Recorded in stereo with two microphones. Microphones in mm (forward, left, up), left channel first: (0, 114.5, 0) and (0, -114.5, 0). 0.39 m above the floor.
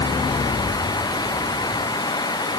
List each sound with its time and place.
Only background noise.